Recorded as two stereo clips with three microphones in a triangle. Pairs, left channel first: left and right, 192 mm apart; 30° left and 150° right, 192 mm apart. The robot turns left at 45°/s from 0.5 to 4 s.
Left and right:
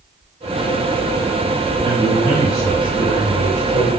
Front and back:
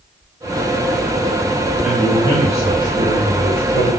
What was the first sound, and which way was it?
A man speaking, 70° right.